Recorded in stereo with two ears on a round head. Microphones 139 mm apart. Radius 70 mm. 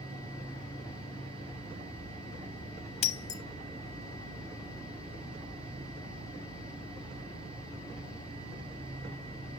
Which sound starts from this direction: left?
Breaking glass, at 3.0 s.